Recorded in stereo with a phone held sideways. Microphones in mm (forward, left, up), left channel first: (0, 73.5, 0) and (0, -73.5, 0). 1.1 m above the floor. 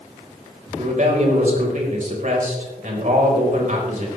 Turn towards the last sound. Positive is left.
turn(degrees=-60)  # may be behind; listen again after turning